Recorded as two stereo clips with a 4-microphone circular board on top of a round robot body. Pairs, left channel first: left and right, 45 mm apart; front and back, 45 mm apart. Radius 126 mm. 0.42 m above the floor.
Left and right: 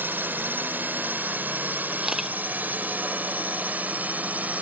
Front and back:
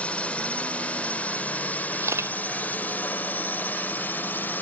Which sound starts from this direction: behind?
A camera shutter, at 2.0 s.